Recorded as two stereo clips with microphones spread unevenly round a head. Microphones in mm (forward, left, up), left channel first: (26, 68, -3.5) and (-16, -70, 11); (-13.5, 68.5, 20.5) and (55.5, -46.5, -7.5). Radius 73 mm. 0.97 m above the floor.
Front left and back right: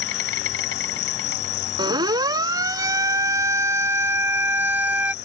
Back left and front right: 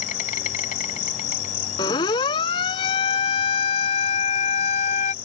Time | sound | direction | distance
0.0 | an insect | 90° left | ?
1.8 | a siren | 175° right | ?